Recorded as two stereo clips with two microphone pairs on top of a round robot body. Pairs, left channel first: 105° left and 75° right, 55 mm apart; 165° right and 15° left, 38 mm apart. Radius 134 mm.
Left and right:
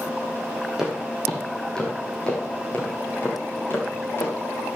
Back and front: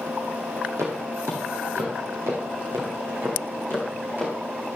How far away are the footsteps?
About 2.0 m.